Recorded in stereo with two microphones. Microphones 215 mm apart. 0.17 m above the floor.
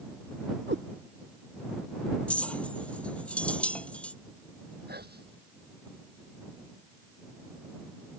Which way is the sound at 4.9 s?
45° right (ahead or behind).